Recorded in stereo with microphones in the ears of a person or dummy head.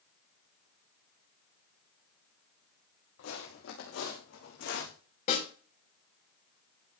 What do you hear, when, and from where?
3.2 s footsteps: 70° left (ahead or behind), 5.5 m; by 4.9 s 75° left (ahead or behind), 4.5 m
5.3 s a snare drum: 45° left (ahead or behind), 4.5 m